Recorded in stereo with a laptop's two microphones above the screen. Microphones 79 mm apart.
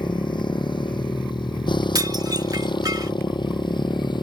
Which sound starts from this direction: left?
A motorcycle, at 0.0 s.